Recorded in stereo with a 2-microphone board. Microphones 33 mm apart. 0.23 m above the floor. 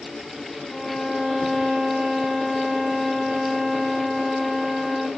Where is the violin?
10° left (ahead or behind), 1.5 m.